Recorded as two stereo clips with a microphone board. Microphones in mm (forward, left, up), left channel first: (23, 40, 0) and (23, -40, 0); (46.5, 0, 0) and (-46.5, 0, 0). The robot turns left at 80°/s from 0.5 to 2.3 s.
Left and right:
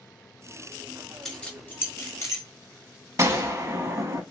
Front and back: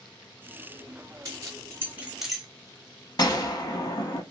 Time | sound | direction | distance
1.2 | keys jangling | 175° left | 1.0 m
3.2 | a gunshot | 40° right | 0.6 m